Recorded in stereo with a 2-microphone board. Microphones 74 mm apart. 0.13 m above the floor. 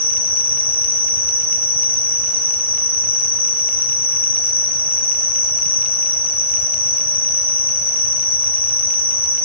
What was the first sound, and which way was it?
An insect, 30° left (ahead or behind).